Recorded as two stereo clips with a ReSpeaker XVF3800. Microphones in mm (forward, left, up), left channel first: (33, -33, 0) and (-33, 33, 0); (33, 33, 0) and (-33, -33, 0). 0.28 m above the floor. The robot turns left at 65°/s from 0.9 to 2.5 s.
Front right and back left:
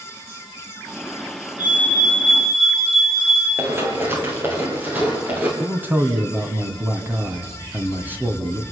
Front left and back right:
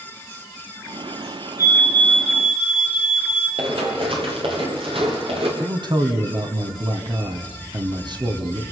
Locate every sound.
1.6 s a fire alarm: 80° right, 8.5 m; by 3.5 s 140° right, 8.5 m
3.6 s running footsteps: 160° right, 7.5 m; by 5.5 s 150° right, 8.5 m
5.6 s a man speaking: 160° right, 2.5 m